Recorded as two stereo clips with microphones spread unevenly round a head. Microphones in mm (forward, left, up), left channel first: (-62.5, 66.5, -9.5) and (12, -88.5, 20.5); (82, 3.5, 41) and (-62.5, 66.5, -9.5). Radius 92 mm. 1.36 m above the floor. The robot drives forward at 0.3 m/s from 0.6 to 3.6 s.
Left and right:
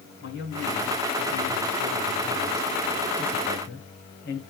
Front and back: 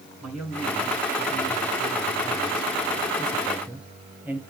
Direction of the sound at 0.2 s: 70° left.